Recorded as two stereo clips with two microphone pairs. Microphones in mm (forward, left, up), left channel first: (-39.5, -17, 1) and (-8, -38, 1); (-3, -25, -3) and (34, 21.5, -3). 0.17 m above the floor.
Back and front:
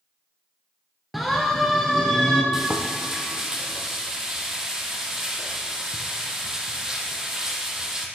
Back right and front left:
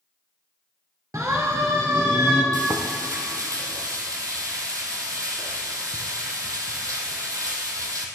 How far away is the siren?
About 2.5 m.